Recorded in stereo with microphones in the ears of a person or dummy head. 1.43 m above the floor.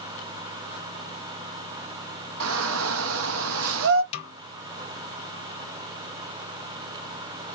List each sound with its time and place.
2.4 s a shout: 75° right (ahead or behind), 1.1 m
4.1 s a snare drum: 30° left (ahead or behind), 0.8 m